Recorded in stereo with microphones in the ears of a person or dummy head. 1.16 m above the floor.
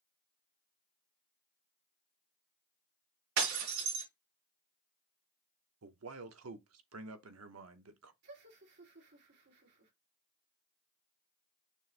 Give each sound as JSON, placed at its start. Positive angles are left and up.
{"t": 3.4, "sound": "breaking glass", "side_deg": -75, "distance_m": 3.5}
{"t": 5.8, "sound": "a man speaking", "side_deg": -85, "distance_m": 0.8}
{"t": 8.2, "sound": "laughter", "side_deg": -65, "distance_m": 2.5}